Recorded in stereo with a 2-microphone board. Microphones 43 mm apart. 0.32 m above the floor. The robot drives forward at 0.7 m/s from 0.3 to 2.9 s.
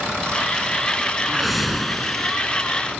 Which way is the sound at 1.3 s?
Centre (ahead or behind).